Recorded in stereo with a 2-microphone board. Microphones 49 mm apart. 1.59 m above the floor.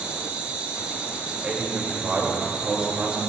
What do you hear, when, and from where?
0.0 s an insect: 25° right (ahead or behind), 1.0 m
1.4 s a man speaking: 25° right (ahead or behind), 2.5 m